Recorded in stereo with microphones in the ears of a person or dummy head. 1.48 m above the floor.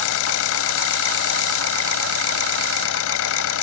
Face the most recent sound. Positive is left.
turn(degrees=80)